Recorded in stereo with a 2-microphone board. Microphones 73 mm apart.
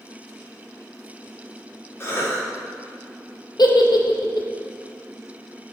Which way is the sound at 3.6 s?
70° left (ahead or behind).